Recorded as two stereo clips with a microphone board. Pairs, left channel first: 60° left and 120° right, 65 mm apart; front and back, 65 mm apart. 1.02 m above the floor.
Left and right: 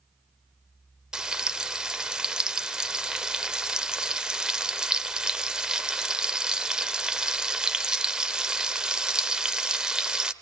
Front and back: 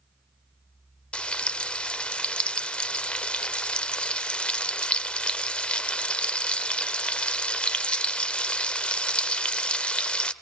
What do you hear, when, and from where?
1.1 s frying: 55° right, 0.8 m